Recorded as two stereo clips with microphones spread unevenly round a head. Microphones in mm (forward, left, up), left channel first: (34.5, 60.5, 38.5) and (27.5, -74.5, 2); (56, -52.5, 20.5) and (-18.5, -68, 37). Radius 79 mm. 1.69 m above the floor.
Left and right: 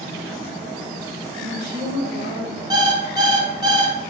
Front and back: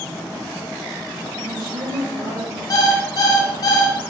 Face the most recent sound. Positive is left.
turn(degrees=-25)